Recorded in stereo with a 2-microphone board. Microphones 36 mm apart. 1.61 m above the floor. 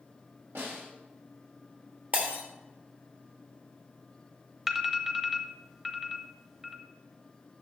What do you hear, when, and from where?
0.6 s a snare drum: 85° right, 5 m
2.1 s breaking glass: 45° right (ahead or behind), 2.5 m
4.7 s an alarm: 10° right (ahead or behind), 1.0 m